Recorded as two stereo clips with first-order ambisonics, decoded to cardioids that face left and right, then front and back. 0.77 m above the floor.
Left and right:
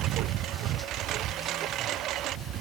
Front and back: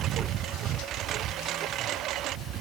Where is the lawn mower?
130° right; by 2.6 s 135° right.